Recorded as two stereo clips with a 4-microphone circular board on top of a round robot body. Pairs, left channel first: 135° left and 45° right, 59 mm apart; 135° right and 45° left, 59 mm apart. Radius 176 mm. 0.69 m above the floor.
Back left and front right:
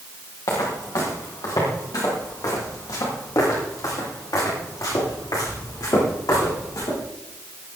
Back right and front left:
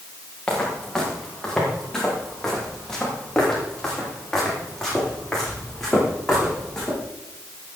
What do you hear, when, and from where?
0.5 s footsteps: 150° left, 6 m; by 7.0 s 145° left, 13.5 m